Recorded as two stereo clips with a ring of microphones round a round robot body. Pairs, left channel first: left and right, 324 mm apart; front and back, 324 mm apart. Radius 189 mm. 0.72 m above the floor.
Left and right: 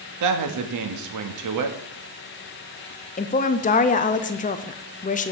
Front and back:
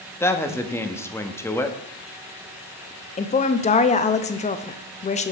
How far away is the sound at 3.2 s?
About 0.6 m.